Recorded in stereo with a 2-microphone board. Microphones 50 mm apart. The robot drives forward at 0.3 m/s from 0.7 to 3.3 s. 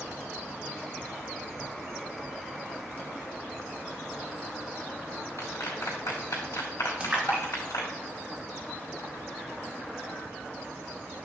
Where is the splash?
20° right (ahead or behind), 2 m.